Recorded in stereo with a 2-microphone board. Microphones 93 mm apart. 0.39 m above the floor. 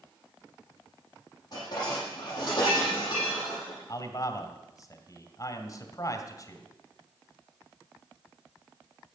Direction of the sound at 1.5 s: 45° left (ahead or behind).